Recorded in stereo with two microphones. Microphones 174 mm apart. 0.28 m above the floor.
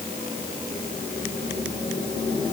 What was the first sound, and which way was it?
Only background noise.